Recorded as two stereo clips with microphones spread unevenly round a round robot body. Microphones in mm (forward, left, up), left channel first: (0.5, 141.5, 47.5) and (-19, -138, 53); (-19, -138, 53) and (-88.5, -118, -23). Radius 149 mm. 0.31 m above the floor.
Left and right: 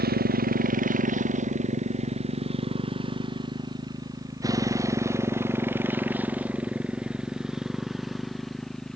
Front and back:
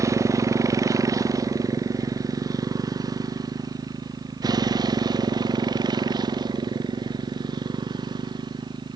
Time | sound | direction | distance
0.0 | a motorcycle | 150° right | ?